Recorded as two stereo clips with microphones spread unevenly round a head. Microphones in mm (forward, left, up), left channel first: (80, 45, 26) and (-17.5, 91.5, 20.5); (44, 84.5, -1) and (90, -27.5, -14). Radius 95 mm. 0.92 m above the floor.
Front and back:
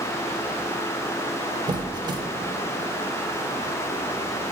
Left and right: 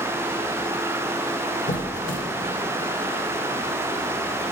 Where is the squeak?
105° left, 0.7 m.